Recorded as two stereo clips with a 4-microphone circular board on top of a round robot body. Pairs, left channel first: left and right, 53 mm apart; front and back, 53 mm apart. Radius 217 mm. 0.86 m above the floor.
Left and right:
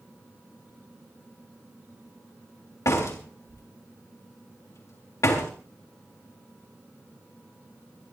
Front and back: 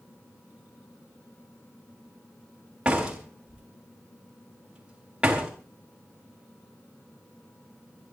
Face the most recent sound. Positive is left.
turn(degrees=105)